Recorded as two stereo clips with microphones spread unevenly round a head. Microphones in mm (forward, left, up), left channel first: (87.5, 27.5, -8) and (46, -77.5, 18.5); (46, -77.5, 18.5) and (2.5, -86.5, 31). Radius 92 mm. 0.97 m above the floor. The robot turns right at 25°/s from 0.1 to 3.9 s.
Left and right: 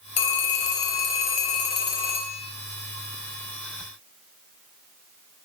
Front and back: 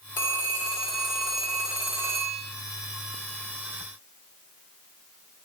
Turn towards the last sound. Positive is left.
turn(degrees=165)